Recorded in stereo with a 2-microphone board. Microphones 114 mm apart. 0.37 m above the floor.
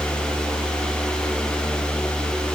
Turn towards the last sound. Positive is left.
No sound to turn to.